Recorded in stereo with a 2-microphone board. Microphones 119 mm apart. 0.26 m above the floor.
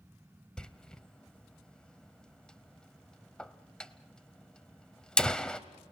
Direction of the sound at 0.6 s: 5° left (ahead or behind).